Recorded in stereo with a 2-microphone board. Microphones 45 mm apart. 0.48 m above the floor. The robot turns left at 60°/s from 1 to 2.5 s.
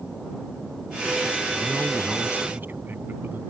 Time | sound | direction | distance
1.6 | a man speaking | 5° left | ?